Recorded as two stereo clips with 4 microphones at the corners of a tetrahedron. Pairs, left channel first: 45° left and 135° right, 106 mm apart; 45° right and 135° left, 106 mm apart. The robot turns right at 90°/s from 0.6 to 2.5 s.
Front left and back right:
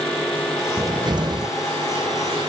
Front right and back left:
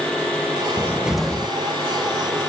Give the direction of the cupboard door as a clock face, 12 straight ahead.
6 o'clock.